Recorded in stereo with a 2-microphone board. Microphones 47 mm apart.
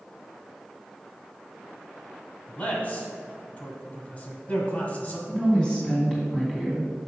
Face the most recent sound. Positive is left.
turn(degrees=15)  # may be behind; listen again after turning